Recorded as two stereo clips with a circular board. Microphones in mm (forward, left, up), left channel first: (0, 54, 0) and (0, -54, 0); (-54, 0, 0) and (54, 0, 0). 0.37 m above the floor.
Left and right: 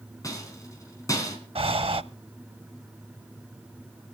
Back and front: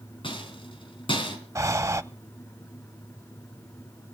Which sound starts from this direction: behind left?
A rattle, at 0.2 s.